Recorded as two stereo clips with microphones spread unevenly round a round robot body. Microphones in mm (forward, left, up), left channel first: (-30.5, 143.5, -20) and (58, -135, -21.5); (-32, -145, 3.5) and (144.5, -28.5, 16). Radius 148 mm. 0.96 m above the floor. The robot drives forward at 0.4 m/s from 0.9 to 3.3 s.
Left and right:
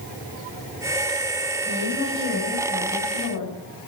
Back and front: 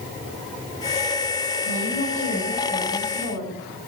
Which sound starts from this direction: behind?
A woman speaking, at 1.6 s.